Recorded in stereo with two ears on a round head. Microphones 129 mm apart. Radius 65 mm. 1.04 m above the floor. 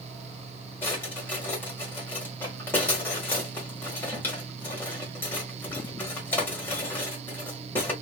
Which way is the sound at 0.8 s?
15° left (ahead or behind).